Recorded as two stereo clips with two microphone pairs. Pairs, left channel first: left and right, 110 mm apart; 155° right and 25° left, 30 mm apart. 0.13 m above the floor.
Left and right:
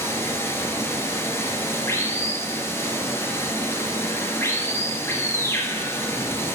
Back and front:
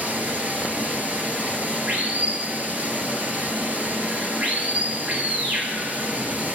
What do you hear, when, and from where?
0.0 s running water: 30° left, 2 m